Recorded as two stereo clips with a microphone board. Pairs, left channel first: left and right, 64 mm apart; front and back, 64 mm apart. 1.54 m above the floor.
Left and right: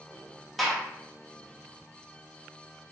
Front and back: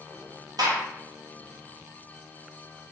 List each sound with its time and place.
0.6 s a gunshot: straight behind, 0.8 m